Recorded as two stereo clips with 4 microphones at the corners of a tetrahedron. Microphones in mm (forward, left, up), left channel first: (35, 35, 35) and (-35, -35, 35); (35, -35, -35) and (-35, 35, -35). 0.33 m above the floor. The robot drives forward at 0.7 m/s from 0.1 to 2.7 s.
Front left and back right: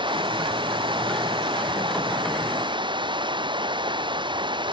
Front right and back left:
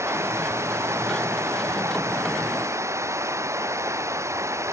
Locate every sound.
0.0 s running water: 165° right